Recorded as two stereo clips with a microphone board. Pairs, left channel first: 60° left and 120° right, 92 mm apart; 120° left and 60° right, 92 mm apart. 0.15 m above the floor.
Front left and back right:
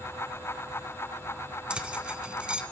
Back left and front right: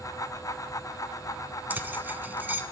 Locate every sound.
1.7 s keys jangling: 65° right, 0.7 m